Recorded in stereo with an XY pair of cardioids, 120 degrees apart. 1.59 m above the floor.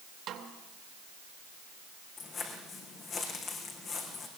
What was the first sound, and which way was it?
A snare drum, 65° right.